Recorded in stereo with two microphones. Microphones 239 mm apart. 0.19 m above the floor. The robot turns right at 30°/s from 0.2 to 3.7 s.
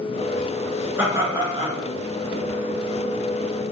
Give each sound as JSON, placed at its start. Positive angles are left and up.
{"t": 1.0, "sound": "laughter", "side_deg": -10, "distance_m": 2.5}